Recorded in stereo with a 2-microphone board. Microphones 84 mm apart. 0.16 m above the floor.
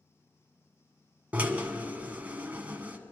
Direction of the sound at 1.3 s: 20° right (ahead or behind).